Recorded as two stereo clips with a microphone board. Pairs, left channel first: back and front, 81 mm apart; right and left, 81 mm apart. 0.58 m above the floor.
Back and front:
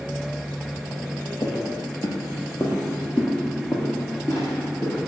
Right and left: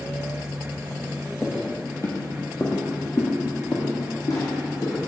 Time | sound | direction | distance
1.4 | footsteps | 165° right | 0.9 m